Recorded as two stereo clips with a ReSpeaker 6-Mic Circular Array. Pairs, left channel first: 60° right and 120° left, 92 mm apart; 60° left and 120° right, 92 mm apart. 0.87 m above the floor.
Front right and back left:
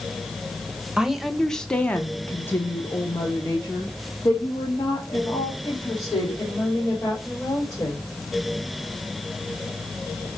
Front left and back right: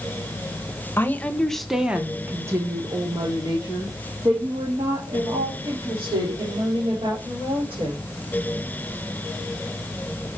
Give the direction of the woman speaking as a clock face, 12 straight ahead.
10 o'clock.